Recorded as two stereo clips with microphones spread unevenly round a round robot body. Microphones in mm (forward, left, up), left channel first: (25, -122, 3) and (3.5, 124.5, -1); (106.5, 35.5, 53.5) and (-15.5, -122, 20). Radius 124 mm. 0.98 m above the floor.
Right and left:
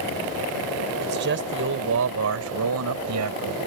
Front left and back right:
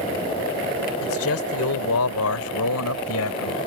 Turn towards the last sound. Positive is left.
turn(degrees=80)